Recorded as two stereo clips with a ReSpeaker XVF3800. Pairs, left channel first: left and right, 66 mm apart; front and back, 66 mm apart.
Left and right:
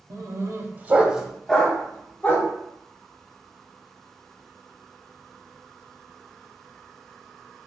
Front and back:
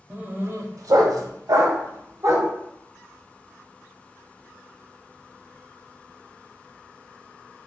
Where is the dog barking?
110° right, 0.7 m; by 2.5 s 145° left, 1.1 m.